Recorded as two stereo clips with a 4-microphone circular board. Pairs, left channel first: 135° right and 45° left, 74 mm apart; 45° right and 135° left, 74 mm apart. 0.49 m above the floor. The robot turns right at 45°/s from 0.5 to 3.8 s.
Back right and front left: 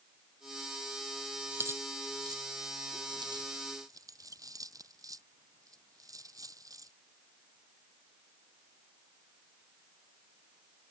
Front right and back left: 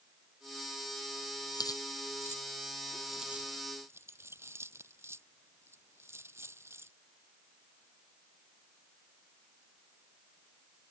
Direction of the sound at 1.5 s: 20° right.